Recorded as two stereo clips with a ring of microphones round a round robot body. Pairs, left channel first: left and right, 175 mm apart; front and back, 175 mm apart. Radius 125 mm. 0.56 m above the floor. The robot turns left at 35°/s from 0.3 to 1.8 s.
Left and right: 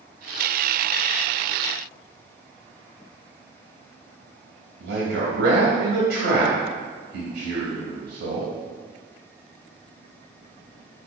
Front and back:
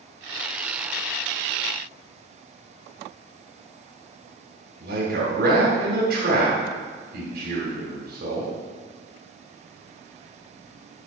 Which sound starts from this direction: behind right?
A man speaking, at 4.8 s.